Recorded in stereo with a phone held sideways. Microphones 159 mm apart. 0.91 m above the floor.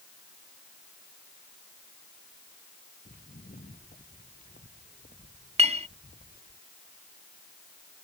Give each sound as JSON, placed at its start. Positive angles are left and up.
{"t": 3.0, "sound": "footsteps", "side_deg": 55}
{"t": 5.6, "sound": "a clink", "side_deg": -40}